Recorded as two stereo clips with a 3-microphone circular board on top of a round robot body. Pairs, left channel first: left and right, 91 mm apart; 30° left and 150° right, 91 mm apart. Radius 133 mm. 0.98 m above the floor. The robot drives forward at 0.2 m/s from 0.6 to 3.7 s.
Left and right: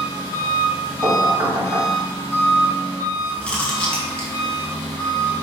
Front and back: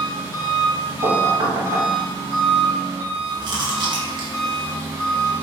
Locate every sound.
0.0 s an engine running: 145° left, 1.7 m; by 5.4 s 155° left, 2 m
1.0 s knocking: 155° right, 1.2 m
3.4 s chewing: 170° left, 1.1 m